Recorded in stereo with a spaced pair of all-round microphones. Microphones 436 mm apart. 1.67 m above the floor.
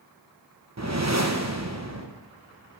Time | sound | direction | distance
0.8 | a whoosh | 35° right (ahead or behind) | 1.0 m